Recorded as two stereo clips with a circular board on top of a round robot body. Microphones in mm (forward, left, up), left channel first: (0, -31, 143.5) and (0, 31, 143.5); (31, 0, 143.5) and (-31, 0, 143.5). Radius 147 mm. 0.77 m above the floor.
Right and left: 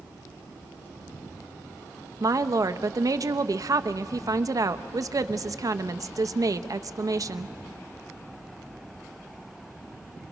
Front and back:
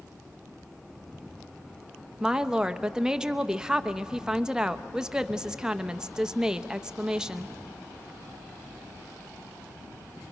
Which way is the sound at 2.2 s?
100° left.